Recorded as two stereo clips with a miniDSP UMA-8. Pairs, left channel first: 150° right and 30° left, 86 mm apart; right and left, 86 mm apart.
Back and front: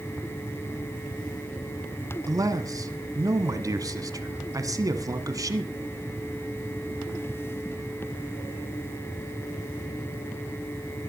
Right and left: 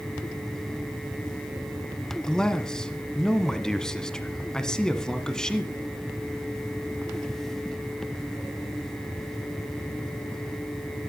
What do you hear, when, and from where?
2.3 s a man speaking: 10° right, 1.5 m